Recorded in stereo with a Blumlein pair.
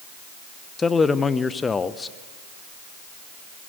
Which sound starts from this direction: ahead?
A man speaking, at 0.8 s.